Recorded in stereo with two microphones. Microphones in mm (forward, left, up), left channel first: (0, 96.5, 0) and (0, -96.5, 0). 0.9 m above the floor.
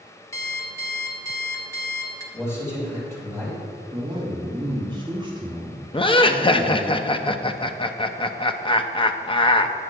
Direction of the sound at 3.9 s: 25° right (ahead or behind).